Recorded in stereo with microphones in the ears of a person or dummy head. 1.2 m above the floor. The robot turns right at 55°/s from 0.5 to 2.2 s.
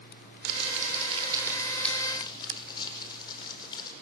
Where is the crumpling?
70° right, 4 m; by 3.9 s 25° left, 4 m.